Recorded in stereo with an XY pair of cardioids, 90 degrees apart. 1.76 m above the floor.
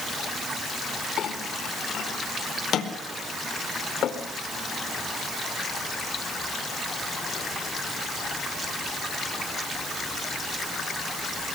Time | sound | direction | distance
1.2 | a clink | 70° left | 4 m